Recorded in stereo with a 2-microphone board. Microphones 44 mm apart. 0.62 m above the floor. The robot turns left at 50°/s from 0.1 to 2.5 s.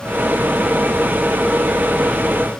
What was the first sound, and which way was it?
Only background noise.